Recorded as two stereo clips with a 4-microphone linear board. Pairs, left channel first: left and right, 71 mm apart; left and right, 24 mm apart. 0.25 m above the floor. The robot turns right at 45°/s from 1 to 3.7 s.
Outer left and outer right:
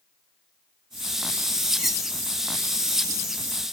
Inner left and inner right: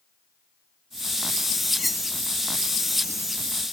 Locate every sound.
1.8 s cutlery clinking: 5° right (ahead or behind); by 2.1 s 5° left (ahead or behind)